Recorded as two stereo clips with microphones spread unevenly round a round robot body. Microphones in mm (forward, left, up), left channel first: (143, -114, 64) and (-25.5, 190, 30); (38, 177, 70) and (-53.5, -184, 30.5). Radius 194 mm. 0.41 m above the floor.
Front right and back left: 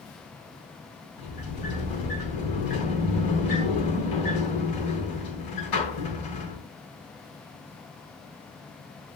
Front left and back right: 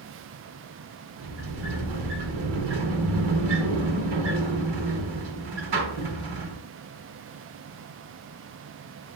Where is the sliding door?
95° right, 4 m.